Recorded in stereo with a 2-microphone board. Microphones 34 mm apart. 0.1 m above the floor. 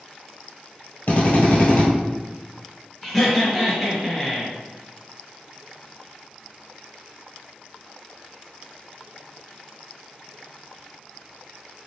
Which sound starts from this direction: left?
A drill, at 1.1 s.